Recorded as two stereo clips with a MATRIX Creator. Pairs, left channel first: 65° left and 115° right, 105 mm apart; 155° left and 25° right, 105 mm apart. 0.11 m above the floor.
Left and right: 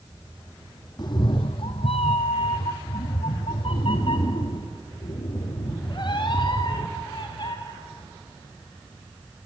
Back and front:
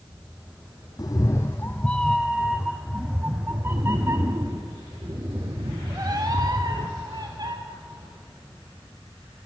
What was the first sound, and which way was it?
A cat meowing, 110° left.